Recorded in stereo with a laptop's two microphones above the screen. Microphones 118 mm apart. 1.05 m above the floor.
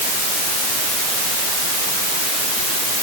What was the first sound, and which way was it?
Only background noise.